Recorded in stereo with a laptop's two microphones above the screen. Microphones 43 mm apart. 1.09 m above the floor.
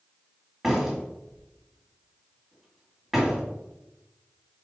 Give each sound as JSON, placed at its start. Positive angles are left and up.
{"t": 0.6, "sound": "a door slam", "side_deg": -10, "distance_m": 1.7}